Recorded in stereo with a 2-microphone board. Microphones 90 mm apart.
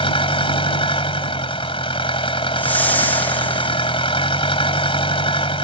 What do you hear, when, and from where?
0.0 s an engine running: 80° left
2.6 s a whoosh: 20° left (ahead or behind)